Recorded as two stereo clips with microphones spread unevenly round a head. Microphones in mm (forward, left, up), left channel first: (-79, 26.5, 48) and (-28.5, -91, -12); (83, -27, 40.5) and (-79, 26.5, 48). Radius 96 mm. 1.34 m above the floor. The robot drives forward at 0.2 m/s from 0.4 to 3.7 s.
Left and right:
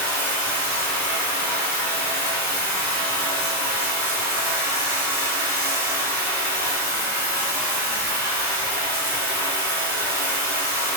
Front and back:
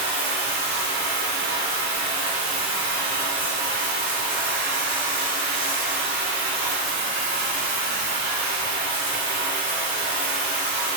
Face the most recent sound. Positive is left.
turn(degrees=125)